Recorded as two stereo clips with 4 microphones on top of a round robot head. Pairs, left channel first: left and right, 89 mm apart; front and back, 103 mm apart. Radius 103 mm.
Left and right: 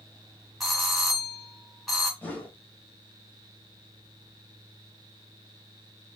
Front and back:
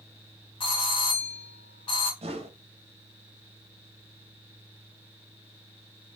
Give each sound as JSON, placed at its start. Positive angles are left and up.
{"t": 0.6, "sound": "a doorbell", "azimuth_deg": 5, "distance_m": 1.7}
{"t": 2.2, "sound": "a whoosh", "azimuth_deg": 160, "distance_m": 1.1}